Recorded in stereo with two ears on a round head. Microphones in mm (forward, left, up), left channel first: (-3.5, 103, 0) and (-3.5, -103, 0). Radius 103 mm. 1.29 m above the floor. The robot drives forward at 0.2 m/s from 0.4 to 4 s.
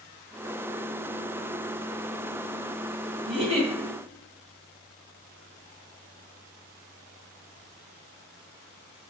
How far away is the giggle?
About 1.1 m.